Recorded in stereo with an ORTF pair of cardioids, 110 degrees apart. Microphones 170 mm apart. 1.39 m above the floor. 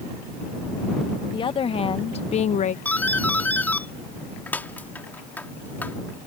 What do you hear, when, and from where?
1.3 s a woman speaking: 30° left; by 2.8 s 45° left
2.9 s a doorbell: 10° left